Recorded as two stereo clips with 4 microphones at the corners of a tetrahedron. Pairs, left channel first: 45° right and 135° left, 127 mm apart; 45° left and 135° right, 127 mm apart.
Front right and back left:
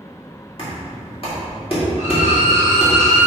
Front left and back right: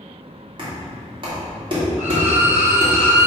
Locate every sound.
0.6 s knocking: 85° right, 2.5 m
2.0 s a violin: 60° right, 2 m